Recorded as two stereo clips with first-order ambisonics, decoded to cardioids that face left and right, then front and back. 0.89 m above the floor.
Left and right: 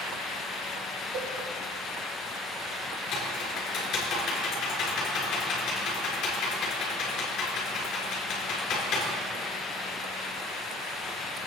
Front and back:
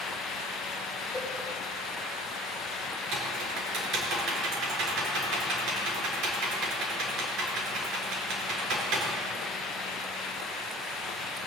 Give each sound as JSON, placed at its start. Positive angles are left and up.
{"t": 1.1, "sound": "a cowbell", "azimuth_deg": -95, "distance_m": 1.9}
{"t": 3.1, "sound": "typing on a keyboard", "azimuth_deg": 145, "distance_m": 3.5}